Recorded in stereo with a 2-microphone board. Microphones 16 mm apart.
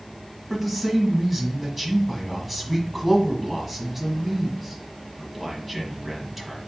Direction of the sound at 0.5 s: 5° right (ahead or behind).